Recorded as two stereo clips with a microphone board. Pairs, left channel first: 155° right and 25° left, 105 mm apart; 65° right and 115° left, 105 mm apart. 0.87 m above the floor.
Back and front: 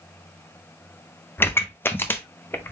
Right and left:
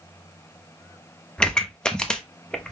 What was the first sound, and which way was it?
A pop, 135° right.